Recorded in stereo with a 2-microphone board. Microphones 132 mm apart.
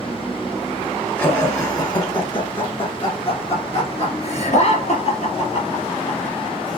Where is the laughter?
15° left (ahead or behind), 2 m; by 6.8 s 65° left (ahead or behind), 4 m.